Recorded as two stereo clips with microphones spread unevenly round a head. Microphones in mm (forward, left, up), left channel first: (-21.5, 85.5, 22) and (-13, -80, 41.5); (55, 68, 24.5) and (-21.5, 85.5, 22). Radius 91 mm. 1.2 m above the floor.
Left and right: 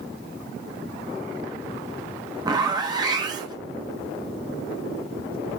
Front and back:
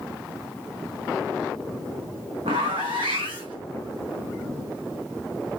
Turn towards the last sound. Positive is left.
turn(degrees=-150)